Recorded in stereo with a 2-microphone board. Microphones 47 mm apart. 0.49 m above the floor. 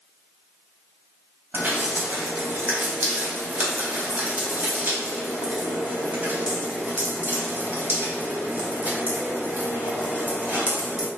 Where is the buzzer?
I don't hear a buzzer.